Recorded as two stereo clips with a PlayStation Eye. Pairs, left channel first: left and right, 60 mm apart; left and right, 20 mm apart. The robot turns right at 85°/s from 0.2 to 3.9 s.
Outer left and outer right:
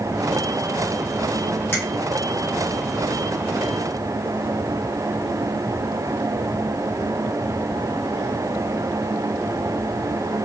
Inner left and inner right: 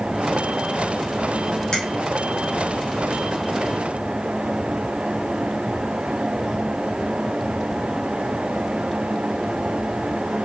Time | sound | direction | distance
1.7 | a finger snap | 40° left (ahead or behind) | 1.2 m